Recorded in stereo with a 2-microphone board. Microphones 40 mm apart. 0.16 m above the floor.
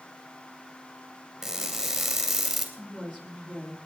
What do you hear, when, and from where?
1.4 s crushing: 5° right (ahead or behind), 2.5 m
2.8 s a woman speaking: 15° left (ahead or behind), 5.5 m